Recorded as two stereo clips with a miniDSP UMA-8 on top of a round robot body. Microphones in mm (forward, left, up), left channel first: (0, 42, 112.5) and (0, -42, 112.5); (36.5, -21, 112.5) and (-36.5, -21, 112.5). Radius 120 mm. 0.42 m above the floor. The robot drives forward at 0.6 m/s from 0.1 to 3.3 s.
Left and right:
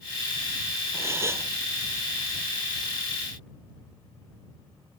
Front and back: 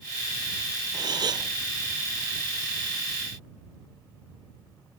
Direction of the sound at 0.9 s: 150° right.